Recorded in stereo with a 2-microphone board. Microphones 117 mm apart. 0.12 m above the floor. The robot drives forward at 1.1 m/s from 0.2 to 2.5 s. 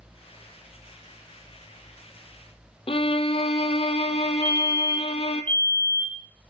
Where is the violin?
50° left (ahead or behind), 0.8 m.